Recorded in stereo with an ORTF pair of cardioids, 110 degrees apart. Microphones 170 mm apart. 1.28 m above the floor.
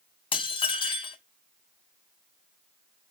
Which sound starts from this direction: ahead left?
Dishes clattering, at 0.3 s.